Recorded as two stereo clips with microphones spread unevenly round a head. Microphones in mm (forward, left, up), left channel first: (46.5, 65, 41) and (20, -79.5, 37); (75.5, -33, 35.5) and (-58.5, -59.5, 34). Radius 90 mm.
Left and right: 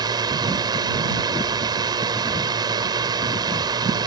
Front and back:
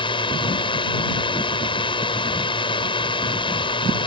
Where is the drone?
40° right.